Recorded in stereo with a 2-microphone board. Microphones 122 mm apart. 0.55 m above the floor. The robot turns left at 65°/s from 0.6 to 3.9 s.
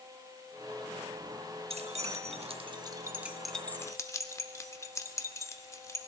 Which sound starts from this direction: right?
Keys jangling, at 1.7 s.